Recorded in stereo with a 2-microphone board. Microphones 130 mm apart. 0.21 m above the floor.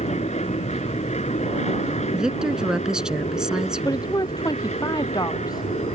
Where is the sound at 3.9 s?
30° left (ahead or behind).